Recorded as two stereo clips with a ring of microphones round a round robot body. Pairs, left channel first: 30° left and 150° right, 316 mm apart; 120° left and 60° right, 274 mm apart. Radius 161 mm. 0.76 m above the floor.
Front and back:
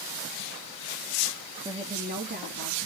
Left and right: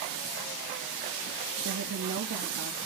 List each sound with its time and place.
1.6 s a woman speaking: 80° right, 1.0 m; by 2.8 s 95° right, 1.6 m